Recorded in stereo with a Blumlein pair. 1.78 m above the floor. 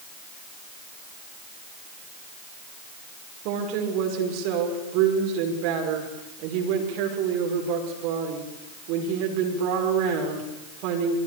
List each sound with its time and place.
3.5 s a woman speaking: 45° right, 6 m